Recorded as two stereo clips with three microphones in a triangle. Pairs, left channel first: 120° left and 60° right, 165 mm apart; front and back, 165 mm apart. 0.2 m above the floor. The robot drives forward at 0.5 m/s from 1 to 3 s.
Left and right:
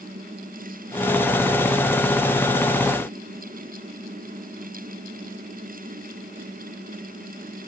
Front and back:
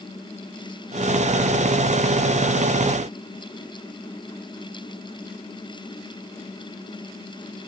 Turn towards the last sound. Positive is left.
No sound to turn to.